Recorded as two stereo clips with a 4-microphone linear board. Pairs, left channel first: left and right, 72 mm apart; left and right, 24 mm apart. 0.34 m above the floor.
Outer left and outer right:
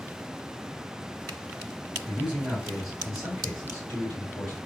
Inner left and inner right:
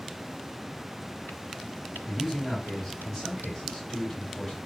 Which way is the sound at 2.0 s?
15° right (ahead or behind).